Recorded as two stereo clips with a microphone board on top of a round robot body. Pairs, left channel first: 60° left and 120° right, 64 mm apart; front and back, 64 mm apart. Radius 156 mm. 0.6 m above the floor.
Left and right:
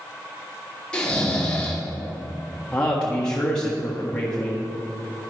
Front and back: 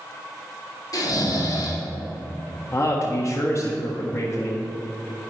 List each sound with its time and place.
0.9 s snoring: 15° right, 2.5 m
2.7 s a man speaking: 15° right, 1.6 m